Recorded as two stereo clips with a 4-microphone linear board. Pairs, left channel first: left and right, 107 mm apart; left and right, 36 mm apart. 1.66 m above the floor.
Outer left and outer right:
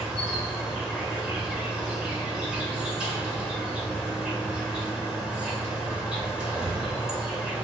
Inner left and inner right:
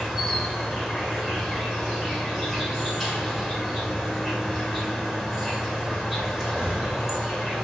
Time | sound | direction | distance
0.0 | an insect | 10° right (ahead or behind) | 1.8 m